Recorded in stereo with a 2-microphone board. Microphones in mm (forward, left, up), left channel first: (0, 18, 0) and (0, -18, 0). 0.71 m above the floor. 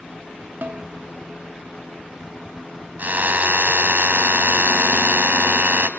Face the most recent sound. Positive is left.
turn(degrees=-60)  # may be behind; listen again after turning